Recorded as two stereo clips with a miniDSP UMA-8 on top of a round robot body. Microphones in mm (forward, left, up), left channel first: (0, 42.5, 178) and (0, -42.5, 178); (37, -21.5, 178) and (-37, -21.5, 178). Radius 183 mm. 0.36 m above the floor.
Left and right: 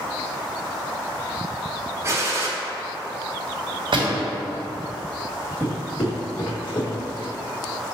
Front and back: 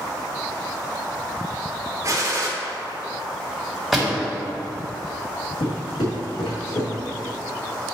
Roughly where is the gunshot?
Behind right.